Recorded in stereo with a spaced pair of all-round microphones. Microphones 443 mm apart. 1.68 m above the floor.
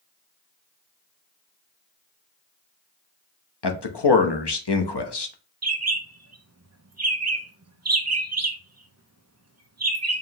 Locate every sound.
3.6 s a man speaking: 65° left (ahead or behind), 0.8 m
5.6 s a bird: 35° right (ahead or behind), 0.6 m